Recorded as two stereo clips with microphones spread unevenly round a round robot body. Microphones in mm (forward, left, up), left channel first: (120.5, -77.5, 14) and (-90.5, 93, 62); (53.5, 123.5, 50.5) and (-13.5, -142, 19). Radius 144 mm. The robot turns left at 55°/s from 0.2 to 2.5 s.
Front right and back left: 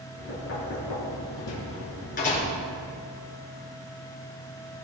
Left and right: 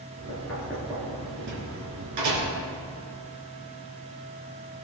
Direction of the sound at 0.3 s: 5° left.